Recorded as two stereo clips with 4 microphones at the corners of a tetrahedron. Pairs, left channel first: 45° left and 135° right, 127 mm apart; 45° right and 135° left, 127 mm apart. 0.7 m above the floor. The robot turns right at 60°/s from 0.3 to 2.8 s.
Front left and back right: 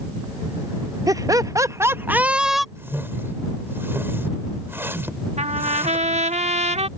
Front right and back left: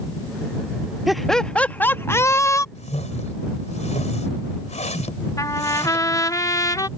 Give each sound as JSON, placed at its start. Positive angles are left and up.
{"t": 1.1, "sound": "laughter", "azimuth_deg": -140}
{"t": 2.8, "sound": "a whoosh", "azimuth_deg": -65}
{"t": 5.4, "sound": "a trumpet", "azimuth_deg": -110}